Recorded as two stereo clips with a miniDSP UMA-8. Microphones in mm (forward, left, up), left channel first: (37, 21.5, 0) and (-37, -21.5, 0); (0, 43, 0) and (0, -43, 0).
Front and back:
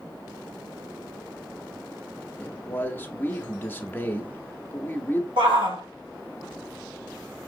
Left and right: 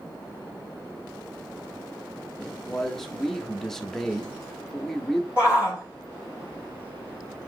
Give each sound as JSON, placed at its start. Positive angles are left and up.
{"t": 2.4, "sound": "a man speaking", "azimuth_deg": 10, "distance_m": 0.6}
{"t": 5.4, "sound": "a shout", "azimuth_deg": -165, "distance_m": 3.0}